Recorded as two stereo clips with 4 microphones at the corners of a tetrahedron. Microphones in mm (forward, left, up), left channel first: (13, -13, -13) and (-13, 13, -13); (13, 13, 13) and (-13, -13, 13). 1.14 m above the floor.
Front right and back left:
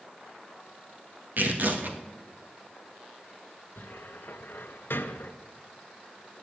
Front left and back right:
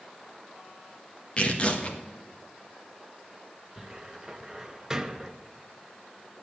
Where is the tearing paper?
105° left, 1.6 m.